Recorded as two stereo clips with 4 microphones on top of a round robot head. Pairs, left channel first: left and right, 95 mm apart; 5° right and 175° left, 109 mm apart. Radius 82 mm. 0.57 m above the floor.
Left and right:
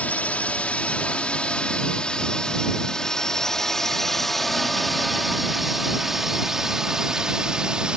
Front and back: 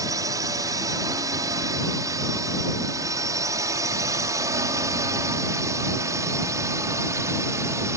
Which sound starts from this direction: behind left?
A drone, at 0.0 s.